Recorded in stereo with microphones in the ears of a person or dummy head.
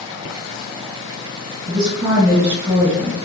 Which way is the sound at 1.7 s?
25° right (ahead or behind).